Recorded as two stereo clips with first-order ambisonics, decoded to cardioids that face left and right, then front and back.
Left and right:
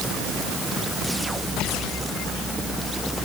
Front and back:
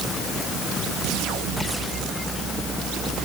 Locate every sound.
Only background noise.